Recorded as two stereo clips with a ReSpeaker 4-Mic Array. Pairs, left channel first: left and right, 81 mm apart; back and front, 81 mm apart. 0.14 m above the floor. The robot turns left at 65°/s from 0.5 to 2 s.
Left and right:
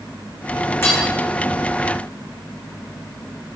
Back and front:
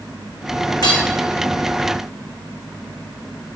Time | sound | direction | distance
0.8 | hammering | 150° left | 3 m